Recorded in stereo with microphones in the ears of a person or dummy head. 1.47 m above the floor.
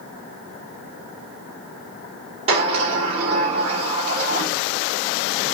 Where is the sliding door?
30° right (ahead or behind), 1.6 m.